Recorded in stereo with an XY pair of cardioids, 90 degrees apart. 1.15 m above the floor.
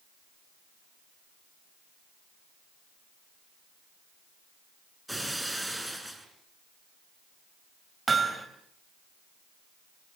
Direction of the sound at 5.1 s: 5° right.